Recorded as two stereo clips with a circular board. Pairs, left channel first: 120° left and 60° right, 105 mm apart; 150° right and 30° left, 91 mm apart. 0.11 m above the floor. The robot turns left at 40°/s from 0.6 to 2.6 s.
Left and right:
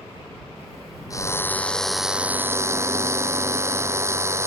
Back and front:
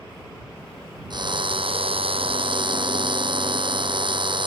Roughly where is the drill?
Ahead left.